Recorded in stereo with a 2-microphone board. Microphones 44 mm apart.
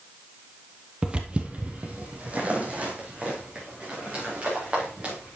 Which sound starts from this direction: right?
Footsteps, at 1.0 s.